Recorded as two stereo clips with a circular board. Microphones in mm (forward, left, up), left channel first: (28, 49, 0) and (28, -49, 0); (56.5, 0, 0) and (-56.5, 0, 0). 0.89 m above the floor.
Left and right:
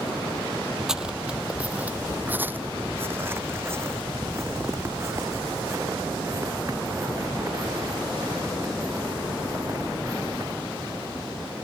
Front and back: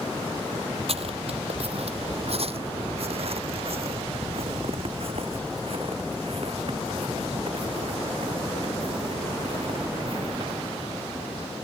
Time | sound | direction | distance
0.9 | footsteps | 175° right | ?